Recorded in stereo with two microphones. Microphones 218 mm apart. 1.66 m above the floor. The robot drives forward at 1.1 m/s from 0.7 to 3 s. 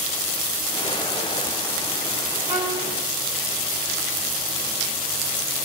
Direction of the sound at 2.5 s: 20° right (ahead or behind).